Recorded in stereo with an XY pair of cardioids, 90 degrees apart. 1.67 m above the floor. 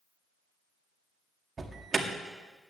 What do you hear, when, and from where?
1.6 s an alarm: 40° right, 1.9 m